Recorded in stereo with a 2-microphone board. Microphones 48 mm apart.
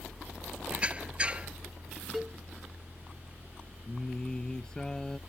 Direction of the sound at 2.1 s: 5° right (ahead or behind).